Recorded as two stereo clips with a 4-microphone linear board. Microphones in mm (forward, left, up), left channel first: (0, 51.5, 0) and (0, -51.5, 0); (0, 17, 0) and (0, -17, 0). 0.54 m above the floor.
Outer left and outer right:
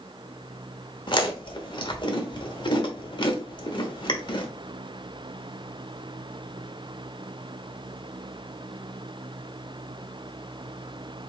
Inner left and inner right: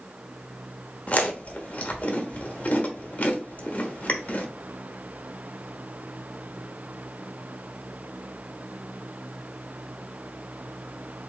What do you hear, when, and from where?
1.1 s chewing: 50° left (ahead or behind), 1.1 m